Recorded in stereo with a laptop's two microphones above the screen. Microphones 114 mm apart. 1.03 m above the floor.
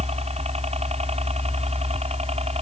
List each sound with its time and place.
0.0 s a helicopter: 65° right (ahead or behind)